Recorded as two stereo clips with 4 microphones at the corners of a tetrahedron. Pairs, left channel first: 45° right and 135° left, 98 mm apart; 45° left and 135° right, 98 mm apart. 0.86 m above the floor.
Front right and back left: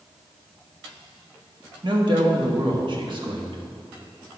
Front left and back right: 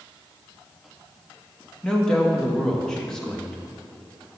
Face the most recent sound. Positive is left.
turn(degrees=130)